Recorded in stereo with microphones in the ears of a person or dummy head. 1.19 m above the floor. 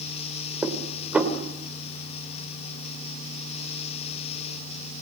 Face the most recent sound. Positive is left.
turn(degrees=-5)  # may be behind; listen again after turning